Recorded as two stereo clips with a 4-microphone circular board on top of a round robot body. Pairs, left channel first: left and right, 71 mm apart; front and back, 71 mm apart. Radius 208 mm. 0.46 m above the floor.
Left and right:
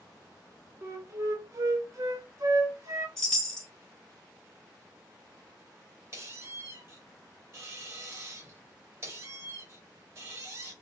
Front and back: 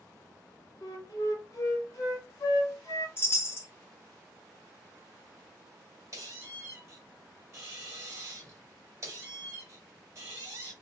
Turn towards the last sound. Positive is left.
turn(degrees=-135)